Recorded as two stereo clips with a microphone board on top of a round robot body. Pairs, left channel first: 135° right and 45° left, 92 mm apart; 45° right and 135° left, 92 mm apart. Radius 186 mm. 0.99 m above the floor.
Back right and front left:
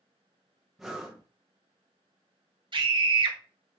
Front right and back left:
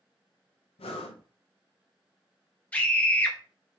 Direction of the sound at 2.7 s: 30° left.